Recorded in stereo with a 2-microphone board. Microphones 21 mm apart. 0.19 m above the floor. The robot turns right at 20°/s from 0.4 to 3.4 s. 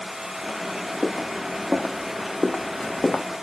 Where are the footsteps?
75° right (ahead or behind), 1.2 m; by 3.2 s 65° left (ahead or behind), 0.7 m.